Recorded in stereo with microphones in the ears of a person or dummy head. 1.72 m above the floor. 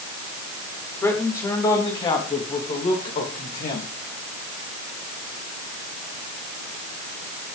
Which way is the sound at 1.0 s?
15° left (ahead or behind).